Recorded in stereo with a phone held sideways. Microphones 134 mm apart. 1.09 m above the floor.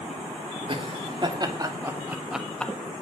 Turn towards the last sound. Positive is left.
turn(degrees=10)  # may be behind; listen again after turning